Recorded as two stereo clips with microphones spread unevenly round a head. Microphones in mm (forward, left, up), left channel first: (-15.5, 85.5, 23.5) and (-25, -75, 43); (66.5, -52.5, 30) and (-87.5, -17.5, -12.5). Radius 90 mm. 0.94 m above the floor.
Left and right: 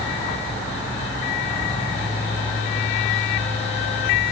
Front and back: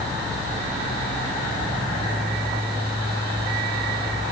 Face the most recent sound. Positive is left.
No sound to turn to.